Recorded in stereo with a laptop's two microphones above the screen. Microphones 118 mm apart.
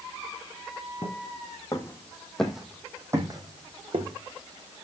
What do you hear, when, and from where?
1.0 s footsteps: 40° left (ahead or behind), 2.5 m; by 4.2 s 55° right (ahead or behind), 2 m